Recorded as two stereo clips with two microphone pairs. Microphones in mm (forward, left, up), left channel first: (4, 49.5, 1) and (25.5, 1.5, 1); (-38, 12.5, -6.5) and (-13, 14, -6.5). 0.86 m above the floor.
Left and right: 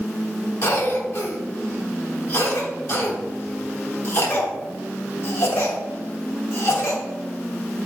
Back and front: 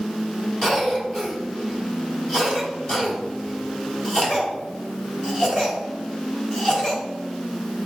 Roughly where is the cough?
Behind left.